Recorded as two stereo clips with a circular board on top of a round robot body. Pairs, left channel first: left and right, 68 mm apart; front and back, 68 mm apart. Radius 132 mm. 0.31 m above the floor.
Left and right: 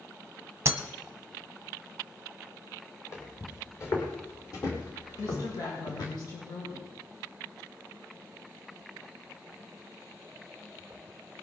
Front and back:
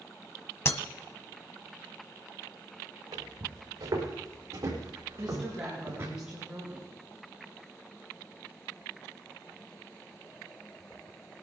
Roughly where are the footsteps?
Behind left.